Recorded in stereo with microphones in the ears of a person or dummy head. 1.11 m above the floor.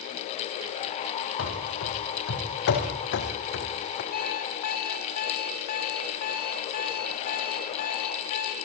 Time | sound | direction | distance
1.4 | running footsteps | 75° left (ahead or behind) | 5 m
4.1 | an alarm clock | 50° left (ahead or behind) | 2.5 m